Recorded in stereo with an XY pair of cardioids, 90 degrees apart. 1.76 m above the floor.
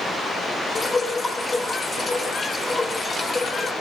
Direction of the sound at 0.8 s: 30° left.